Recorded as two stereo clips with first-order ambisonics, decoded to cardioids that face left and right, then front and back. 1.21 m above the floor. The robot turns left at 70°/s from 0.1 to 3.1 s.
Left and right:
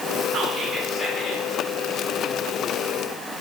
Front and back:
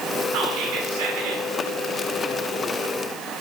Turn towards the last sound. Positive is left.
turn(degrees=25)